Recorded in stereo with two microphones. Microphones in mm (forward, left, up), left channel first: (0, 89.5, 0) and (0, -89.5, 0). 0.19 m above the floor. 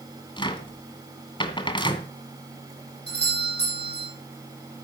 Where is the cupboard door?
25° left (ahead or behind), 1.7 m.